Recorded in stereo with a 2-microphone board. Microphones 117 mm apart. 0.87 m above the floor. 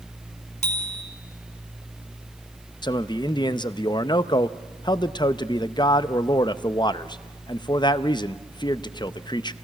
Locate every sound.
0.6 s a bicycle bell: 80° left, 4.5 m
2.8 s a man speaking: 40° left (ahead or behind), 0.6 m